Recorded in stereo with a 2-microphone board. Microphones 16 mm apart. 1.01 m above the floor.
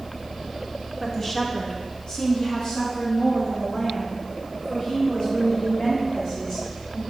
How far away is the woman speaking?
About 1.0 m.